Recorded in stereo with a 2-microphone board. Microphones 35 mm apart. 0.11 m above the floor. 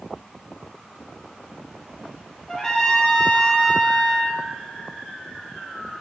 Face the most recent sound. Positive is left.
turn(degrees=15)  # may be behind; listen again after turning